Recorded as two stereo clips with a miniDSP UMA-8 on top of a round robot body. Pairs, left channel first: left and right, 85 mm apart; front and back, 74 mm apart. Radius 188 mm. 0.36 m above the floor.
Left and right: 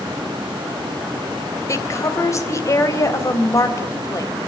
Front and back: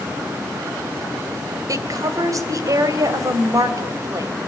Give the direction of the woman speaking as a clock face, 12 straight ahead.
7 o'clock.